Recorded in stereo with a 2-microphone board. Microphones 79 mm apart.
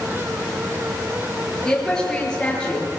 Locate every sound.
1.6 s a woman speaking: 10° left (ahead or behind), 9.5 m; by 2.9 s 15° left (ahead or behind), 8 m